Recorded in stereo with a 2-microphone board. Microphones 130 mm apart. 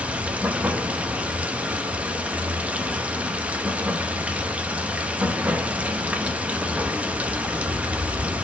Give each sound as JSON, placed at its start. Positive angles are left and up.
{"t": 0.0, "sound": "running water", "side_deg": -10, "distance_m": 0.7}